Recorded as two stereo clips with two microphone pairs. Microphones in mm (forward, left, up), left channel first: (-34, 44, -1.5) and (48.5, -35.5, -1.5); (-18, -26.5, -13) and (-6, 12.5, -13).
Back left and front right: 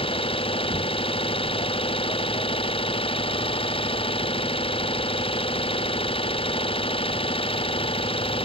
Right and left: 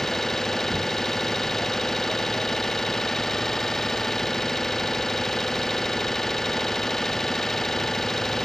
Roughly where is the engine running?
Behind.